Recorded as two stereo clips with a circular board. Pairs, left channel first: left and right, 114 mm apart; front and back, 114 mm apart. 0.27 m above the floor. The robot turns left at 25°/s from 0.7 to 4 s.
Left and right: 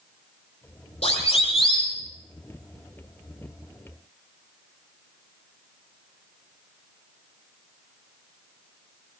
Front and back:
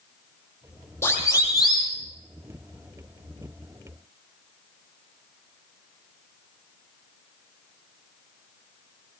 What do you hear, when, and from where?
1.0 s a siren: 65° left, 9.5 m; by 1.9 s 45° left, 9.5 m